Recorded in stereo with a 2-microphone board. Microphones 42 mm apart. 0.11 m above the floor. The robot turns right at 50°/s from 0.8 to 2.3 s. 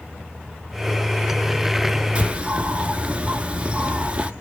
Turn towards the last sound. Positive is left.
turn(degrees=-30)  # may be behind; listen again after turning